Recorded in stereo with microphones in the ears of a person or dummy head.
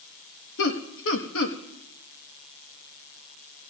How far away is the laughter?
About 1.3 m.